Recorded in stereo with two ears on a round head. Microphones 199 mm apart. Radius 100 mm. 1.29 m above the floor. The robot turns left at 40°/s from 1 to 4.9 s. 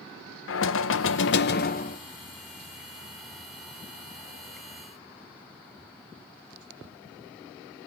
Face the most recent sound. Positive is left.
turn(degrees=-80)